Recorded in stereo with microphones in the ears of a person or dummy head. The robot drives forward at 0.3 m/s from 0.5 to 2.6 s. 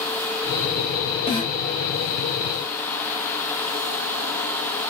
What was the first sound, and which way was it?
A snare drum, 30° left (ahead or behind).